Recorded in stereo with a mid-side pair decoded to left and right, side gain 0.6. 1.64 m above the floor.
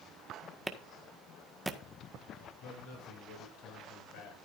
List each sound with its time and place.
0.7 s a clap: 10° right, 1.6 m
2.6 s a man speaking: 70° left, 8.5 m